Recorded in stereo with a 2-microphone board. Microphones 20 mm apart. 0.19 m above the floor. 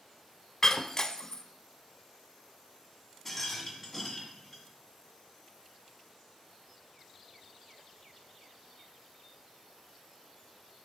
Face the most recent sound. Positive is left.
turn(degrees=10)  # may be behind; listen again after turning